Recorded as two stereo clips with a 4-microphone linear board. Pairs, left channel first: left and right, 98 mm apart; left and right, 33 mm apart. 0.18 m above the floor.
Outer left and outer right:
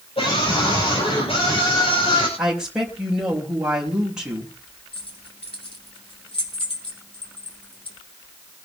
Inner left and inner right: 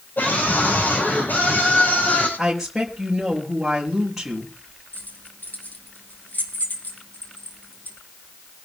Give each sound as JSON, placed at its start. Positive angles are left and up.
{"t": 0.2, "sound": "a scream", "side_deg": 75, "distance_m": 5.5}
{"t": 2.4, "sound": "a woman speaking", "side_deg": -5, "distance_m": 5.5}
{"t": 4.9, "sound": "keys jangling", "side_deg": 70, "distance_m": 4.5}